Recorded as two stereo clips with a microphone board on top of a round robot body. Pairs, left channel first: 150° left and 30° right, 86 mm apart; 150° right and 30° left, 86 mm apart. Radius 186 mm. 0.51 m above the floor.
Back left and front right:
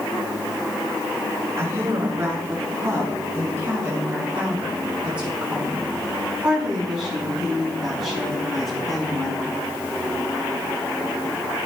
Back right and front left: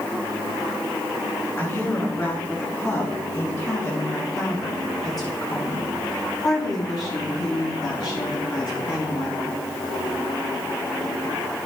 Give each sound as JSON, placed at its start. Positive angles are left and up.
{"t": 1.6, "sound": "a woman speaking", "azimuth_deg": -90, "distance_m": 8.0}